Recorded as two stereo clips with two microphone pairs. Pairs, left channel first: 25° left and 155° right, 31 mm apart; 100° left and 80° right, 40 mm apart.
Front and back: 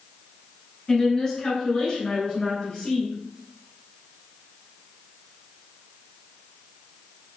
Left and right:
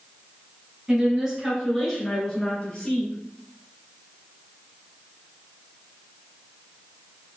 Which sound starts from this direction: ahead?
A woman speaking, at 0.9 s.